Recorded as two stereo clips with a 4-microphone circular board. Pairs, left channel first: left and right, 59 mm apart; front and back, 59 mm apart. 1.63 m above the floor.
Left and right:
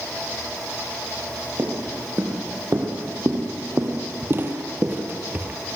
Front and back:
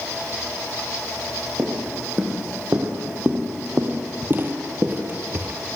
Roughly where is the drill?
No drill in this recording.